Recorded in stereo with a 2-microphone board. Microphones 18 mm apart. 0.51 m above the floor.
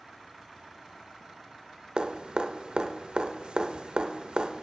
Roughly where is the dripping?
Right.